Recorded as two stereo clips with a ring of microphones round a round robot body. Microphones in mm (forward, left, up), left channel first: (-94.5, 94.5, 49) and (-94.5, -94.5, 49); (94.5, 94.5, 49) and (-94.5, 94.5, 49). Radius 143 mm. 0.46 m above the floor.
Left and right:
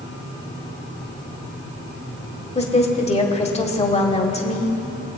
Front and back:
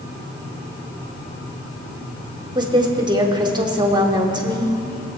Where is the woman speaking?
125° left, 1.6 m.